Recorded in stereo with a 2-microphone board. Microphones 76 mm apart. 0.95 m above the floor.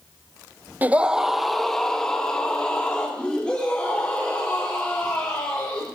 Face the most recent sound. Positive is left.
turn(degrees=15)  # may be behind; listen again after turning